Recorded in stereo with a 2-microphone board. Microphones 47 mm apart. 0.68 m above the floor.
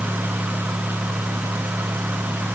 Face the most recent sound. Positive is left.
No sound to turn to.